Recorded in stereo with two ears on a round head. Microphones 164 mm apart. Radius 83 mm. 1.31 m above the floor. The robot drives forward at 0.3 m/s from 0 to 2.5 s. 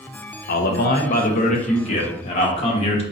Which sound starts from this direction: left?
A man speaking, at 0.5 s.